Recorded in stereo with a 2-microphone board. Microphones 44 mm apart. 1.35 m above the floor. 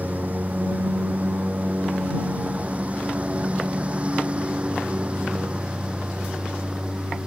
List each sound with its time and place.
0.0 s a lawn mower: 40° right (ahead or behind); by 7.3 s 20° right (ahead or behind)